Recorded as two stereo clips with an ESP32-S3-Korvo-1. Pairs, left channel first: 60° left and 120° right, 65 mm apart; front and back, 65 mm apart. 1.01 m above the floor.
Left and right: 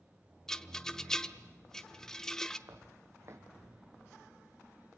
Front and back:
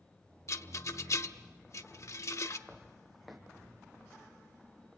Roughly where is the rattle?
Ahead.